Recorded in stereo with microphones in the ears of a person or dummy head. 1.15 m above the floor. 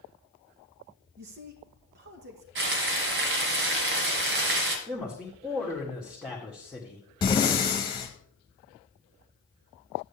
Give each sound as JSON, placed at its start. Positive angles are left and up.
{"t": 1.2, "sound": "a man speaking", "side_deg": -50, "distance_m": 1.5}
{"t": 2.5, "sound": "frying", "side_deg": -55, "distance_m": 1.8}
{"t": 4.9, "sound": "a man speaking", "side_deg": -5, "distance_m": 1.8}
{"t": 7.2, "sound": "breathing", "side_deg": 20, "distance_m": 1.4}